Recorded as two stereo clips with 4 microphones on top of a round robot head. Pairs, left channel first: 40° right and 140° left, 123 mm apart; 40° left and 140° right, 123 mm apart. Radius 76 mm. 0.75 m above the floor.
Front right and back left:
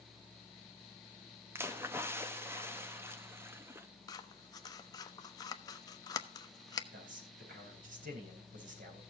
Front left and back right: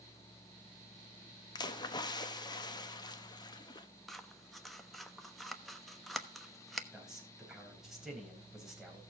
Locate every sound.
1.6 s a splash: 80° left, 1.1 m
4.1 s scissors: 55° right, 1.0 m
6.9 s a man speaking: 130° left, 3.5 m